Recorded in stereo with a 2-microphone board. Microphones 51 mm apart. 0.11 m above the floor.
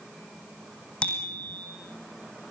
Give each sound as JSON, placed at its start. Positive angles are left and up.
{"t": 1.0, "sound": "a bicycle bell", "side_deg": 20, "distance_m": 3.5}